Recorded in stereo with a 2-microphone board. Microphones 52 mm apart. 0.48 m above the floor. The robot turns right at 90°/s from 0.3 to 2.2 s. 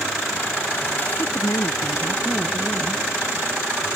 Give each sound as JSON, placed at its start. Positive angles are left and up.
{"t": 1.2, "sound": "a woman speaking", "azimuth_deg": 50}